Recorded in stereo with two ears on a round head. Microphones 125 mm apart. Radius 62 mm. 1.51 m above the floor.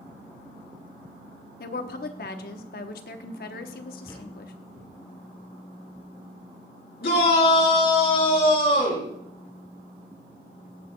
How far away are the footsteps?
About 3.5 m.